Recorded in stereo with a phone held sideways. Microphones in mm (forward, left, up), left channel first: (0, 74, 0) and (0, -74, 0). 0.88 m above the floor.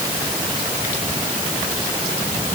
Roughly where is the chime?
I don't hear a chime.